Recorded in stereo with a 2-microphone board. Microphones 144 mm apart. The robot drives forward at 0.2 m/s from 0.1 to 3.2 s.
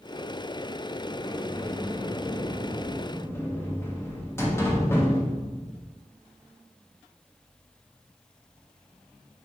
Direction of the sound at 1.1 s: 30° left (ahead or behind).